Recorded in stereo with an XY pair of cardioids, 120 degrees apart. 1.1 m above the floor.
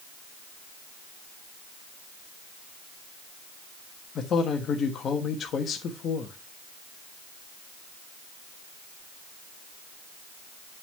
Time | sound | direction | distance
4.2 | a man speaking | 50° left | 1.2 m